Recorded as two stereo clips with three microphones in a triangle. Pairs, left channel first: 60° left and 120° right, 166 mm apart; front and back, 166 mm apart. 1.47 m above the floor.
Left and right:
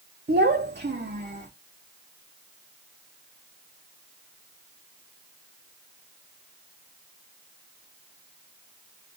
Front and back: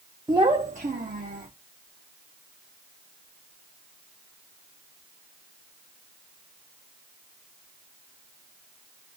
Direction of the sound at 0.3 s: 110° right.